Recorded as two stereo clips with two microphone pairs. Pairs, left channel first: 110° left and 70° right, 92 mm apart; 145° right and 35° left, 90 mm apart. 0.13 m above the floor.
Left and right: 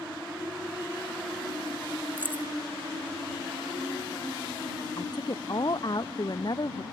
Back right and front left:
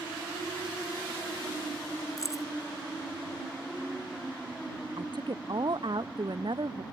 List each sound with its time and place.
2.2 s keys jangling: 130° right
5.0 s a woman speaking: 70° left